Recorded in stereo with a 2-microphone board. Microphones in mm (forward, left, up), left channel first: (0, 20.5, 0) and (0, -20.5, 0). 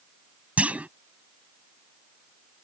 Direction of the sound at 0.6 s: 35° right (ahead or behind).